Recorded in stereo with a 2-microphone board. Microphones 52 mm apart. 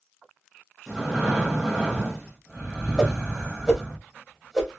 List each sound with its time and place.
0.9 s breathing: 10° right (ahead or behind), 0.9 m
3.0 s a whoosh: 10° right (ahead or behind), 1.1 m